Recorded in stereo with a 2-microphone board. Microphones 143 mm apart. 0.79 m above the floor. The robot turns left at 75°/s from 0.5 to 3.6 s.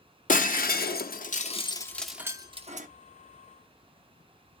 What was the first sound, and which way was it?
Breaking glass, 60° left (ahead or behind).